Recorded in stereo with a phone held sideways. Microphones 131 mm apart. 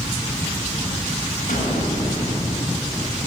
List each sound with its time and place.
1.5 s an explosion: 75° left (ahead or behind), 8 m